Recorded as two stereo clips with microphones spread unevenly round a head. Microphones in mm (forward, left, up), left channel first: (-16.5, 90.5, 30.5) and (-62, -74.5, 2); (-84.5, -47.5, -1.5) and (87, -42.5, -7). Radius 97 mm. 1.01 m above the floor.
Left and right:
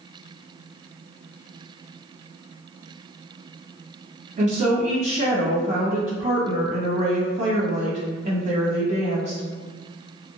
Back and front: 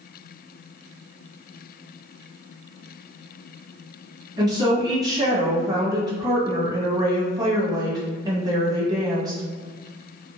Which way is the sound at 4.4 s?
65° right.